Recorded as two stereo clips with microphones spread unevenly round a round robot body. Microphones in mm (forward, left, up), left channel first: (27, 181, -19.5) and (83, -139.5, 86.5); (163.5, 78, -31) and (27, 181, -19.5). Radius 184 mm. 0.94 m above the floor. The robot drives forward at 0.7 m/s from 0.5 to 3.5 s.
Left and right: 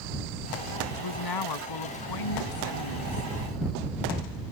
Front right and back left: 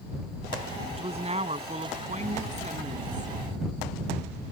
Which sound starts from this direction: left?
A woman speaking, at 0.9 s.